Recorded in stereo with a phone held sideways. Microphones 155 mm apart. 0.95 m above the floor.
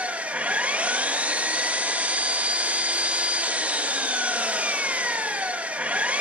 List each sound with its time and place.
0.0 s an engine running: 10° right (ahead or behind), 0.8 m